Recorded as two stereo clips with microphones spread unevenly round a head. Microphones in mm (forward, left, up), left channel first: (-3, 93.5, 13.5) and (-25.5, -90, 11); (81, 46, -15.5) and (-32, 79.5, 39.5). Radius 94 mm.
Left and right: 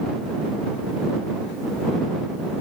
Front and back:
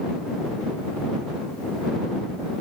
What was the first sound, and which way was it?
Only background noise.